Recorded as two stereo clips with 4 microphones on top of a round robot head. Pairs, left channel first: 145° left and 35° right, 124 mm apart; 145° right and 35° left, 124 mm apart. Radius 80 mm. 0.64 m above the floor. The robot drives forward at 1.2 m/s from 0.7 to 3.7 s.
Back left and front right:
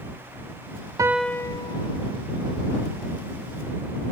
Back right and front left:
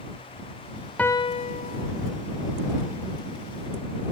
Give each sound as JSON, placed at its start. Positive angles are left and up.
{"t": 1.0, "sound": "a piano", "azimuth_deg": -70}